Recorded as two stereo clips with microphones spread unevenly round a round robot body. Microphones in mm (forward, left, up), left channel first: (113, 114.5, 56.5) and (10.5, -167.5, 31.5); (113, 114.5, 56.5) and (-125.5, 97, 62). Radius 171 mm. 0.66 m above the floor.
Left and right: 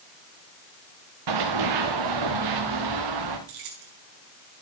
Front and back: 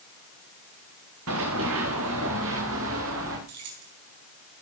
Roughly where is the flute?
I don't hear a flute.